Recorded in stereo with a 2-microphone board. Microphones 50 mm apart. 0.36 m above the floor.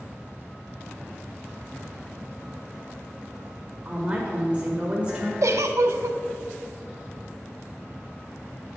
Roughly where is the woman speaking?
Right.